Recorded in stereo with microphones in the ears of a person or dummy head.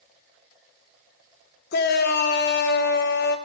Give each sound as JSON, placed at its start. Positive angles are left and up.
{"t": 1.7, "sound": "a shout", "side_deg": 50, "distance_m": 0.8}